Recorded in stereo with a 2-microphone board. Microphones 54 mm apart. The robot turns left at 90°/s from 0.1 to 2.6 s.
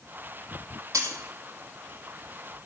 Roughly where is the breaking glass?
Right.